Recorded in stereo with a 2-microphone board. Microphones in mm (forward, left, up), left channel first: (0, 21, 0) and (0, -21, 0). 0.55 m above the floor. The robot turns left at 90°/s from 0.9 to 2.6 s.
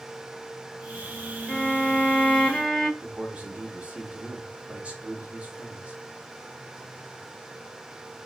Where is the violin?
125° left, 1.5 m; by 2.9 s 20° left, 1.5 m.